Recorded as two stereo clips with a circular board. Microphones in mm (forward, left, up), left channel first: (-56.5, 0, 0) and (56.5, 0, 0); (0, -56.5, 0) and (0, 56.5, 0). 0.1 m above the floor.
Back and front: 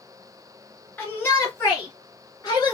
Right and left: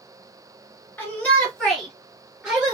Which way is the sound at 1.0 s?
135° right.